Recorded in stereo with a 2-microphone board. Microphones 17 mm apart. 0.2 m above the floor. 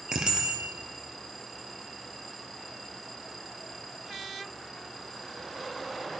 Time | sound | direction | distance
0.1 | a bicycle bell | 50° right (ahead or behind) | 3 m